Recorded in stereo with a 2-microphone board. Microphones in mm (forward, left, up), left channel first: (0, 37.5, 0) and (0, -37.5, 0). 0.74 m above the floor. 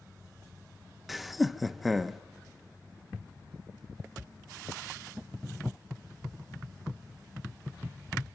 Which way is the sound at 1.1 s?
Centre (ahead or behind).